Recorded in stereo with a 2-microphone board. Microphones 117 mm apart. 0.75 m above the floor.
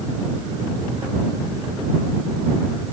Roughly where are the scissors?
I don't hear scissors.